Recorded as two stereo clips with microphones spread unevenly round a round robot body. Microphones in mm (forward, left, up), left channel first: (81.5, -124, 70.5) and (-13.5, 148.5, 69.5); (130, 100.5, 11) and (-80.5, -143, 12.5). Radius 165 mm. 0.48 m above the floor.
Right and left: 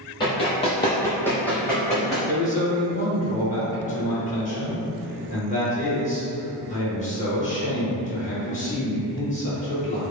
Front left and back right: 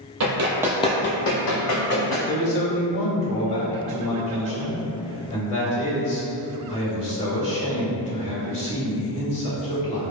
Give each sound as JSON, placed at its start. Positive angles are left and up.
{"t": 0.2, "sound": "running footsteps", "azimuth_deg": -140, "distance_m": 0.6}
{"t": 2.3, "sound": "a man speaking", "azimuth_deg": -15, "distance_m": 1.6}